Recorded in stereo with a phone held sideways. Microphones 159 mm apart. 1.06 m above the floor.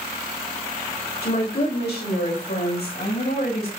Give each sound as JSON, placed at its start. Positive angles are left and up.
{"t": 1.2, "sound": "a woman speaking", "side_deg": 70, "distance_m": 3.5}